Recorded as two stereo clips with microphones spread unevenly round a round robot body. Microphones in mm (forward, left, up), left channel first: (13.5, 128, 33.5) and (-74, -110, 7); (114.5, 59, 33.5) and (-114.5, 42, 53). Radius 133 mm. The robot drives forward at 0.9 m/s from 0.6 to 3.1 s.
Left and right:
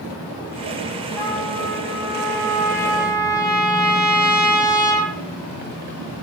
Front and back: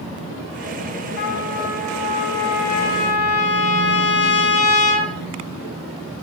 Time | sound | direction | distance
1.2 | a trumpet | 10° right | 8 m